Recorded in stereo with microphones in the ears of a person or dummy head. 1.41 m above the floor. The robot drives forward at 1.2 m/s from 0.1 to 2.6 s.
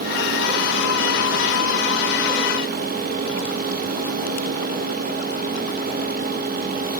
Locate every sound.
Only background noise.